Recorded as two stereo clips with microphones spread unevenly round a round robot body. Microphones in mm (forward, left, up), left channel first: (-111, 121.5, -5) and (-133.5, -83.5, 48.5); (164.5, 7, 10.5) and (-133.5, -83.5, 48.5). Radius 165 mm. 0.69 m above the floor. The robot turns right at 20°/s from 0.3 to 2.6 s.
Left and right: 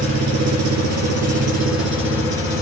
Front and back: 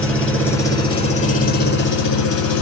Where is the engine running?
70° right, 2 m; by 2.6 s 25° right, 2 m.